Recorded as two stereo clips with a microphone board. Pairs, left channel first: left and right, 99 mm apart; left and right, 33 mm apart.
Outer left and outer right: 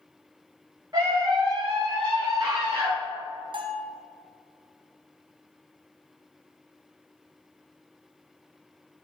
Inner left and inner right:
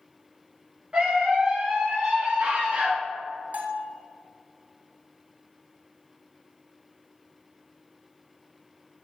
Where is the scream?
40° right (ahead or behind), 1.0 m; by 2.9 s 65° right (ahead or behind), 2.5 m.